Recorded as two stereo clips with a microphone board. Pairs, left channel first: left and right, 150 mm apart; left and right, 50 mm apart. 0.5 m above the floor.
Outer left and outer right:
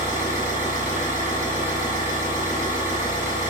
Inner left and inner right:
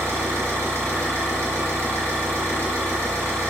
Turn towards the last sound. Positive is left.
turn(degrees=-70)  # may be behind; listen again after turning